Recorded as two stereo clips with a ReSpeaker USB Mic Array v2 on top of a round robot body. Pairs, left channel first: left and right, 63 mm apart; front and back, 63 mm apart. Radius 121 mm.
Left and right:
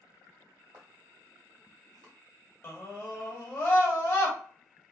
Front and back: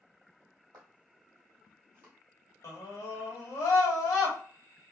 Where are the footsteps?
150° right, 1.7 m; by 2.1 s 120° right, 1.3 m.